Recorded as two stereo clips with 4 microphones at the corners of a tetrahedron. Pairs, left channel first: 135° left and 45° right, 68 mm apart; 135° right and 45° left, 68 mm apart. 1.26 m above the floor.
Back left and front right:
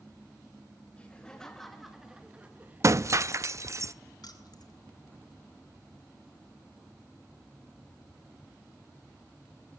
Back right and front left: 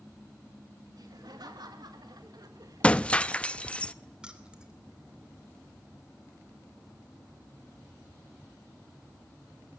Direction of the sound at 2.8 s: 70° right.